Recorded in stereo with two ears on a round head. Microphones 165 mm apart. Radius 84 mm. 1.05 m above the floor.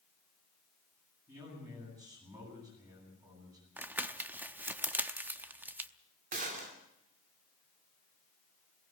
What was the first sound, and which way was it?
A man speaking, 20° right (ahead or behind).